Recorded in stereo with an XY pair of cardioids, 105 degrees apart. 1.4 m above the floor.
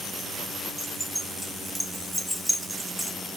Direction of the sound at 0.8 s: 5° right.